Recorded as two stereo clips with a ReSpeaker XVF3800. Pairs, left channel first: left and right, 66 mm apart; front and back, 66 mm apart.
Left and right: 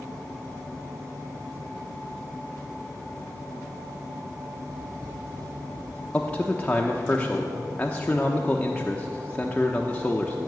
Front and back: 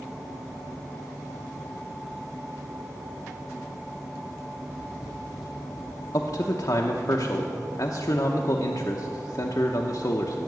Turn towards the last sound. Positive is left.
turn(degrees=20)